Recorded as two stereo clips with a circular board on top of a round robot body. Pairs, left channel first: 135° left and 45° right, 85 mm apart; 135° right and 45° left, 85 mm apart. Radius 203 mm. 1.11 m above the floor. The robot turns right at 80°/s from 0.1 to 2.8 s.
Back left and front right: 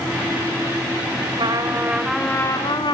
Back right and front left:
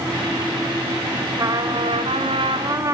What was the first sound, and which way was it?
A trumpet, 15° right.